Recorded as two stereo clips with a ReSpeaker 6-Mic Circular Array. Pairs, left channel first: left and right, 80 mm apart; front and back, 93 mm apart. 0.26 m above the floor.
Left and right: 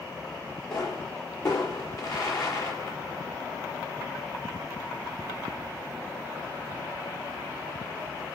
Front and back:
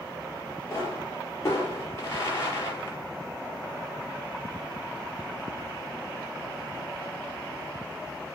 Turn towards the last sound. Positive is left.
turn(degrees=55)